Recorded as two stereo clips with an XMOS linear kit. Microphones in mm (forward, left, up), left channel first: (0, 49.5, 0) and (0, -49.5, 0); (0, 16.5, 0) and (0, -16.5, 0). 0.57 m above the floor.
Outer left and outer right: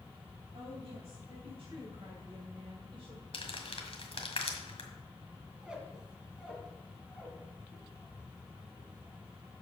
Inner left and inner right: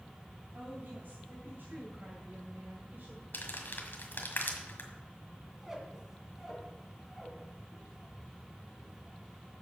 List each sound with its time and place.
0.5 s a woman speaking: 70° right (ahead or behind), 4 m; by 3.2 s 60° right (ahead or behind), 1.8 m
3.3 s crumpling: 65° left (ahead or behind), 1.7 m
5.5 s a squeak: 10° right (ahead or behind), 2.5 m